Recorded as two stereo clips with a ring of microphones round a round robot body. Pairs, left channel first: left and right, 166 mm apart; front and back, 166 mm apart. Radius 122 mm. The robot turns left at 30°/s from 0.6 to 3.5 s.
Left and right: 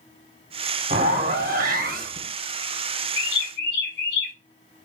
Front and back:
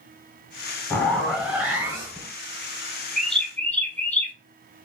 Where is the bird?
90° left, 1.2 m; by 4.3 s 80° left, 1.2 m.